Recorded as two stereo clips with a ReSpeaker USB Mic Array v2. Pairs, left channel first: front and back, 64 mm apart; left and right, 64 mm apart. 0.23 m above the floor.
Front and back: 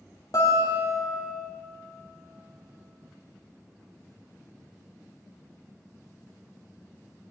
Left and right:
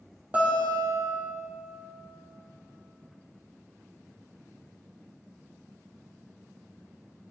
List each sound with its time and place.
0.3 s a guitar: 25° right, 3 m